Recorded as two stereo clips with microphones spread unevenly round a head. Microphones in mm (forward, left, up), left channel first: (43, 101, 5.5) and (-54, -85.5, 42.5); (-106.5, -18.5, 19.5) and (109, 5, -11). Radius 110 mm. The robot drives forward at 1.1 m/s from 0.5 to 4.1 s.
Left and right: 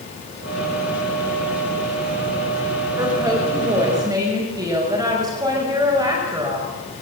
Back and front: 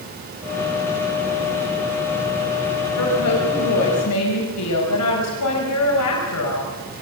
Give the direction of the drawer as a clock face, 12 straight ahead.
No drawer in this recording.